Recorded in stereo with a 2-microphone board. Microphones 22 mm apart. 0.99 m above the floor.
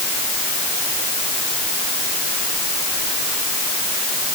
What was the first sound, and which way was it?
Only background noise.